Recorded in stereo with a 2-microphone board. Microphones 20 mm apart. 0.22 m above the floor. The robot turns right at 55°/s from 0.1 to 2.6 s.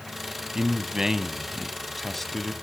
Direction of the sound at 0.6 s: 75° right.